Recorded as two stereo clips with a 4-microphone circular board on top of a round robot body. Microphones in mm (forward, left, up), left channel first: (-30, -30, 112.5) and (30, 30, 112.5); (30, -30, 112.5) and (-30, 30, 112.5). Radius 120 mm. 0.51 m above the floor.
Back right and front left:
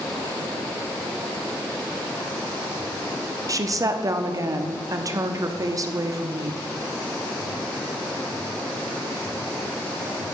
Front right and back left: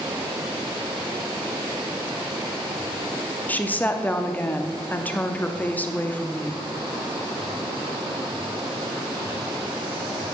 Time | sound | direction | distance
3.5 | a woman speaking | 20° left | 0.8 m